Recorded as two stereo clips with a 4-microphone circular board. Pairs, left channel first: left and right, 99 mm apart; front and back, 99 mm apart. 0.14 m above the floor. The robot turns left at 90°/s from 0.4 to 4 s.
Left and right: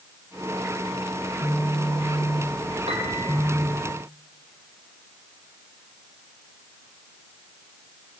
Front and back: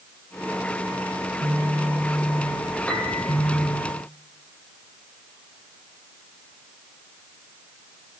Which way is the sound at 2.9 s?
80° right.